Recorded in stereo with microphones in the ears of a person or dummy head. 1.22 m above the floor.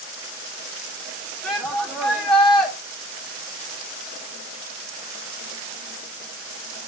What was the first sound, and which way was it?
A shout, centre (ahead or behind).